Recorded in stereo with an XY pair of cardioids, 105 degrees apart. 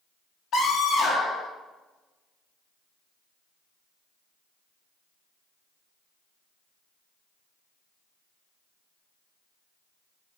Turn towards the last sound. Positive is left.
turn(degrees=55)